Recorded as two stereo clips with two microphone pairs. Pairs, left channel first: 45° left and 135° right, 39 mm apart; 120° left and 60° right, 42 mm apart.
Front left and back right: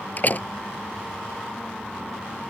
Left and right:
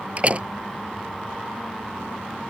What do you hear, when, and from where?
0.2 s a door slam: straight ahead